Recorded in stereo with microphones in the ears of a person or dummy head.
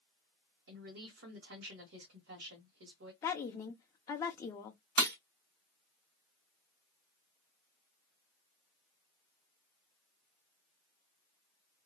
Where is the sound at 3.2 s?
20° left (ahead or behind), 0.5 m.